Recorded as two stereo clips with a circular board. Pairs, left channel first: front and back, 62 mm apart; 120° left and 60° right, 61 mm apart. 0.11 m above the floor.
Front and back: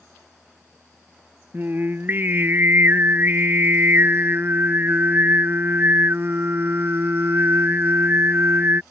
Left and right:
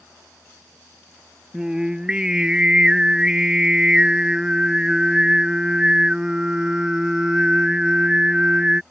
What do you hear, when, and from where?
1.5 s singing: 135° right